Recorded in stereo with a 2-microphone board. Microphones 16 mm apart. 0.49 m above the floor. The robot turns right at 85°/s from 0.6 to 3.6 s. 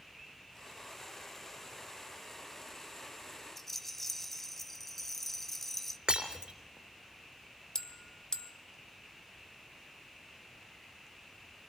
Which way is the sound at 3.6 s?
10° left (ahead or behind).